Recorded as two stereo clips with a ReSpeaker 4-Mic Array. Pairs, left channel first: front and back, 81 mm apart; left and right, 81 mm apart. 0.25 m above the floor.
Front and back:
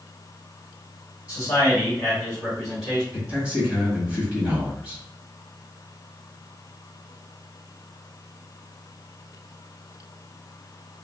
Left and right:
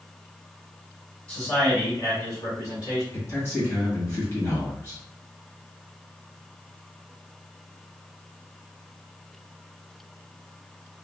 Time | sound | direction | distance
1.3 | a man speaking | 15° left | 1.7 m
3.1 | a man speaking | 120° left | 1.3 m